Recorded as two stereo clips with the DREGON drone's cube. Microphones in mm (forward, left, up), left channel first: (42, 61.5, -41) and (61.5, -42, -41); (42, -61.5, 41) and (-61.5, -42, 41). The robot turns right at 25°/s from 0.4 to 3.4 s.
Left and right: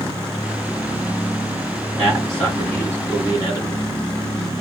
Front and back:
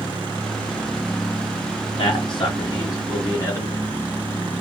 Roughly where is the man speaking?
Ahead.